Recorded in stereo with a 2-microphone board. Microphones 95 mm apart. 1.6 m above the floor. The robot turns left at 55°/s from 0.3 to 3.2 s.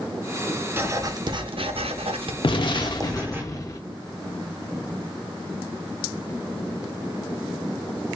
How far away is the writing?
About 0.6 m.